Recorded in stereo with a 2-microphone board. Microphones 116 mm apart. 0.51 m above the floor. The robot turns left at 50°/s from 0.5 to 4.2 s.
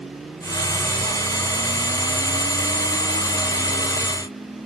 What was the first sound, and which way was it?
Only background noise.